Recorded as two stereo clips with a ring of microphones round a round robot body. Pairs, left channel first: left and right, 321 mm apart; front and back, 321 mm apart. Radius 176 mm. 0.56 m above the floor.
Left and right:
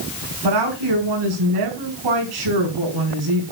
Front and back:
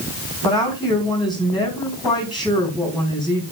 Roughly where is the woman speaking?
Right.